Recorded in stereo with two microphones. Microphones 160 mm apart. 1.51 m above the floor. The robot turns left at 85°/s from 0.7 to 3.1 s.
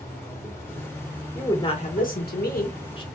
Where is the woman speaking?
175° left, 1.5 m; by 3.0 s 30° left, 1.5 m.